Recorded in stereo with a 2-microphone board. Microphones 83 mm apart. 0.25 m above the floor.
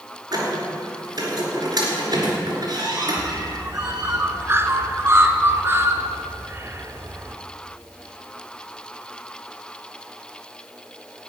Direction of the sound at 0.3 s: 50° right (ahead or behind).